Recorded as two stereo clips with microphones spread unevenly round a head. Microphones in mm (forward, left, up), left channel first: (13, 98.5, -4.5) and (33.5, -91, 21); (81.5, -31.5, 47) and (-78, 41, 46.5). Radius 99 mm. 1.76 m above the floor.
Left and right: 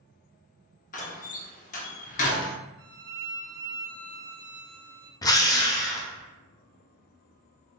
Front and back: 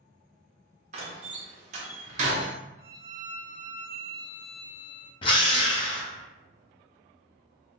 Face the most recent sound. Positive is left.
turn(degrees=25)